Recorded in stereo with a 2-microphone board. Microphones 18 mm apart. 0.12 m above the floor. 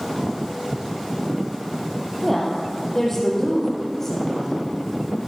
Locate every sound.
2.2 s a woman speaking: 10° left (ahead or behind), 3.5 m; by 4.7 s 15° left (ahead or behind), 5.5 m